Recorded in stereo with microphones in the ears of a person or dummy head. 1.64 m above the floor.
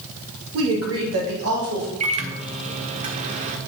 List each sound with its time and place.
0.5 s a woman speaking: 75° right (ahead or behind), 2 m
2.0 s a microwave: 25° right (ahead or behind), 0.8 m